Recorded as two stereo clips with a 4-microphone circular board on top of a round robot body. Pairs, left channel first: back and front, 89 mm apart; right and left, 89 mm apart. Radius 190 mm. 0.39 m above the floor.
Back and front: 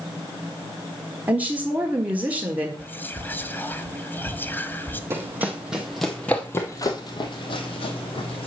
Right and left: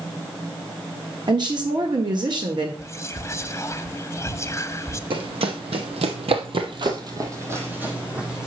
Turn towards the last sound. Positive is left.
turn(degrees=175)